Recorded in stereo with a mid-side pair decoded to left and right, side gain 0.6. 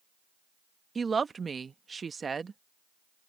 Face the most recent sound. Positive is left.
turn(degrees=-25)